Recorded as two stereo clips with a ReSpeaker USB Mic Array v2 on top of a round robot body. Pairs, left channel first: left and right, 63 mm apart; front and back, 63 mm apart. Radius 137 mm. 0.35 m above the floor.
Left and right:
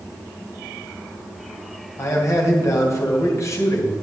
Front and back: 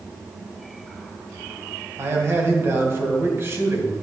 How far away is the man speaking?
About 2.5 m.